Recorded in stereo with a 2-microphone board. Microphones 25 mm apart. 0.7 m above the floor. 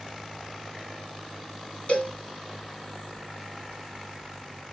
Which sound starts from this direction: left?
A cowbell, at 1.9 s.